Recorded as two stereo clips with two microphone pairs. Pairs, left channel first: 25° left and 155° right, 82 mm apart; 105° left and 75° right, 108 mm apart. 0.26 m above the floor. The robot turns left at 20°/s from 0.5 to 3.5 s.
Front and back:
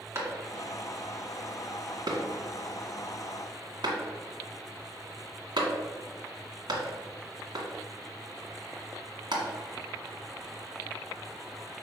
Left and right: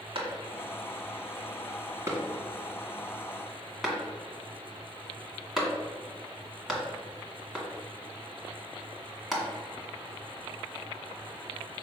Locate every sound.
0.1 s a clap: 105° right, 1.7 m; by 9.4 s 165° right, 1.7 m